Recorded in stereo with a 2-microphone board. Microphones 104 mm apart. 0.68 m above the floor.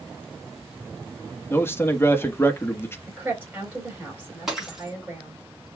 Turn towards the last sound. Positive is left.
turn(degrees=-5)  # may be behind; listen again after turning